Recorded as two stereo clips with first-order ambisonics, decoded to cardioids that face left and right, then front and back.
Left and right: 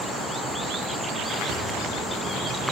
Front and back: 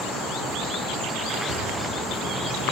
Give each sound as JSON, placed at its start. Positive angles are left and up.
{"t": 1.5, "sound": "a thud", "azimuth_deg": -140, "distance_m": 2.5}